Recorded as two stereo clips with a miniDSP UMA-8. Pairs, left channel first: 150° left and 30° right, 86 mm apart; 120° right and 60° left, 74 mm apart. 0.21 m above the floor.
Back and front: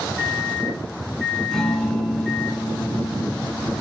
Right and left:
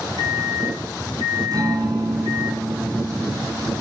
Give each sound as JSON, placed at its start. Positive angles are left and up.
{"t": 0.2, "sound": "a microwave", "azimuth_deg": 75, "distance_m": 2.5}
{"t": 1.5, "sound": "a guitar", "azimuth_deg": 65, "distance_m": 1.7}